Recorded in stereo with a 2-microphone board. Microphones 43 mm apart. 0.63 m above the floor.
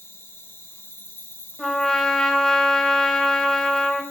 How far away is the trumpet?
About 2.5 m.